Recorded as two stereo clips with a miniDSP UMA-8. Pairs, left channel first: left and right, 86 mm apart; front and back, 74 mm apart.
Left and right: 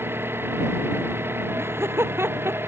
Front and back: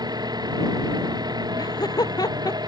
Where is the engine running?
155° right.